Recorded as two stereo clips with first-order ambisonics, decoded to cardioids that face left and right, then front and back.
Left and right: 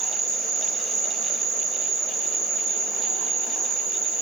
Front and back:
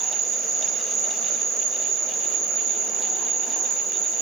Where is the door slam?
No door slam in this recording.